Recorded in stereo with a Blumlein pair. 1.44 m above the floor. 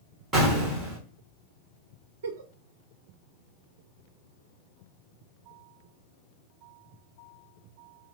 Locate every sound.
0.3 s an explosion: 15° right, 1.7 m
2.2 s a giggle: 60° right, 0.5 m